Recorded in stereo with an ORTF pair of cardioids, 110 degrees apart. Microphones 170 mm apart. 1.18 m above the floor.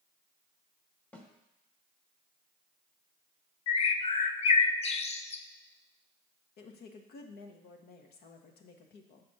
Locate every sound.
1.1 s a snare drum: 10° left, 1.4 m
3.7 s a bird: 40° left, 0.6 m
6.6 s a woman speaking: 70° left, 1.2 m